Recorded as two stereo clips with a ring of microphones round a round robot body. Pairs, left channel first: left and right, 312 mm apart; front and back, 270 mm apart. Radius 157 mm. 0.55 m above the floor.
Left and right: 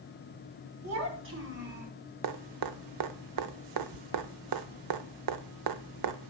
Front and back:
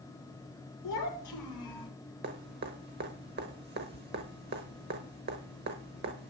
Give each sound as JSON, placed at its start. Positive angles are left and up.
{"t": 0.8, "sound": "a child speaking", "azimuth_deg": -45, "distance_m": 2.5}
{"t": 2.2, "sound": "dripping", "azimuth_deg": -120, "distance_m": 0.8}